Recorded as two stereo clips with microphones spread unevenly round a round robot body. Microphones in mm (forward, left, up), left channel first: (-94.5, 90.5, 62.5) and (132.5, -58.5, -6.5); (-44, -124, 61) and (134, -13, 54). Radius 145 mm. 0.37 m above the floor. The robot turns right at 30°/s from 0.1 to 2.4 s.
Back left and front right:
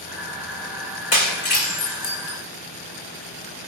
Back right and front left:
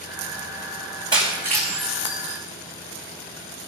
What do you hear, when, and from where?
1.1 s breaking glass: 110° left, 4.5 m; by 2.4 s 150° left, 4.5 m